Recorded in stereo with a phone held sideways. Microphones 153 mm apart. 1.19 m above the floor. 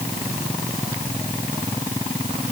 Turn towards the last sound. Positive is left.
No sound to turn to.